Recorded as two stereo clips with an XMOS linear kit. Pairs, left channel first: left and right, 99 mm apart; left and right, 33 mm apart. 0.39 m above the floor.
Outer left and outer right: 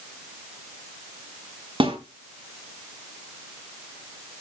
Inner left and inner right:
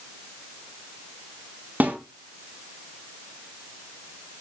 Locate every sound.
1.8 s a snare drum: 60° right (ahead or behind), 4.5 m